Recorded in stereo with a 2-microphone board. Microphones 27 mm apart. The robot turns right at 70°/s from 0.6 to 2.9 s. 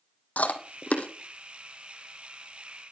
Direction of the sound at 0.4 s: 80° left.